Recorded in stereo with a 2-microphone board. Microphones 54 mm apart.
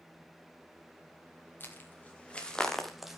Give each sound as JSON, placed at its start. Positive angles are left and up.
{"t": 1.6, "sound": "footsteps", "side_deg": 35, "distance_m": 3.0}